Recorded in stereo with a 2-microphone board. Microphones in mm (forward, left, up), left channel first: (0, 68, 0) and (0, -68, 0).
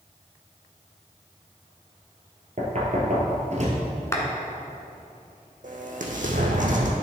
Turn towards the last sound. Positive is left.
turn(degrees=-65)  # may be behind; listen again after turning